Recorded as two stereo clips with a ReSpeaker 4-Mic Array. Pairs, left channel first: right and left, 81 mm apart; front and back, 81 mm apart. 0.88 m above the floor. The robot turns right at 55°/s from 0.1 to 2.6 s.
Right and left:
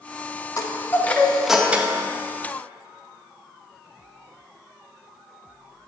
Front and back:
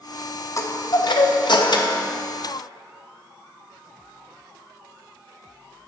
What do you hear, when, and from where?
0.6 s a chime: 45° right, 0.6 m; by 2.0 s 35° left, 0.6 m